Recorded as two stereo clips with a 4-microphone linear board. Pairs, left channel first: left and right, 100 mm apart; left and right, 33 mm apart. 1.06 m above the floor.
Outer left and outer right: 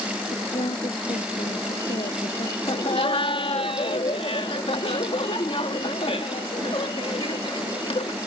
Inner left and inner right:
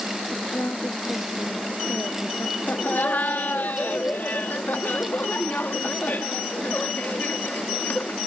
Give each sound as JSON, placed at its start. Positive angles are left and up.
{"t": 0.3, "sound": "a woman speaking", "side_deg": 80}
{"t": 2.7, "sound": "laughter", "side_deg": 70}